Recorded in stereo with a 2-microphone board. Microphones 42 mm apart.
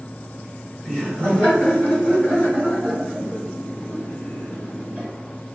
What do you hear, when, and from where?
0.8 s laughter: 20° left (ahead or behind), 1.6 m; by 5.1 s 45° left (ahead or behind), 4 m